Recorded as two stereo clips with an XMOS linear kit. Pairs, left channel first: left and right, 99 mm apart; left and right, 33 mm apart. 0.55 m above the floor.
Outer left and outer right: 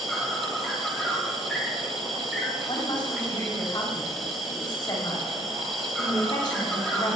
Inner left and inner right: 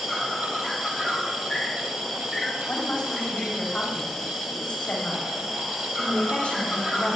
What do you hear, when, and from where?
0.0 s an insect: centre (ahead or behind), 2.0 m
2.7 s a woman speaking: 50° left (ahead or behind), 3 m